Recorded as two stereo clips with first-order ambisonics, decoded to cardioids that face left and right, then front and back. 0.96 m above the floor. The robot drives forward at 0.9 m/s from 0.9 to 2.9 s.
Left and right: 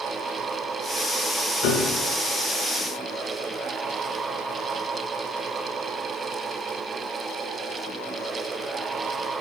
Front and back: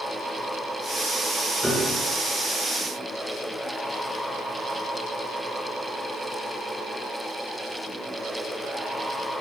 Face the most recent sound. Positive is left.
turn(degrees=100)